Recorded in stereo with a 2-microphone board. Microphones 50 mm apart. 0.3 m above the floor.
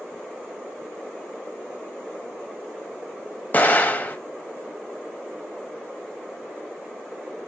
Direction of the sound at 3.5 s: 40° left (ahead or behind).